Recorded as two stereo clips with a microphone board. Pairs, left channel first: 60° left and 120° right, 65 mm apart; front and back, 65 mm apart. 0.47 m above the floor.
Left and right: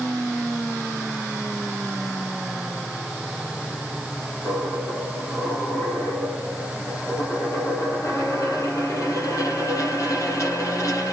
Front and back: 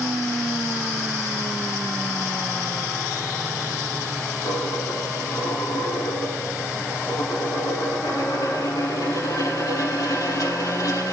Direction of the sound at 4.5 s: 30° left.